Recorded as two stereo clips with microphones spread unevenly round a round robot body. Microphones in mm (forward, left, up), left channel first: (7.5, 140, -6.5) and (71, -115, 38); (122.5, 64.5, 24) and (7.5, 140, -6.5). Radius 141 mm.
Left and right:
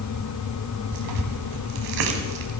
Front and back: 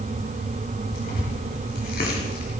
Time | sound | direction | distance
0.9 | tearing paper | 80° right | 2 m